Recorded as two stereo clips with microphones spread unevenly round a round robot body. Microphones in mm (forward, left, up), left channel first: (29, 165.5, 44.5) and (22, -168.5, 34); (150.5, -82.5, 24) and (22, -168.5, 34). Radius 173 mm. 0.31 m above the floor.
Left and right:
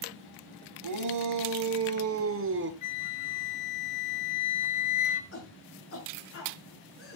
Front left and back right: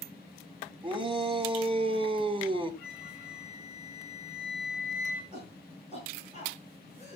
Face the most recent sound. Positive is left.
turn(degrees=140)